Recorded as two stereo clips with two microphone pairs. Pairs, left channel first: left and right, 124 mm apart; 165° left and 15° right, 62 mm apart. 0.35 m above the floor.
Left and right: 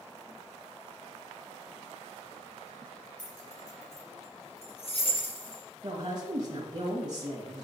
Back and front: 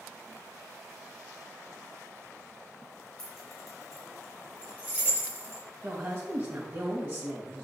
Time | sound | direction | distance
3.2 | keys jangling | 85° left | 4 m
5.8 | a woman speaking | 55° right | 1.9 m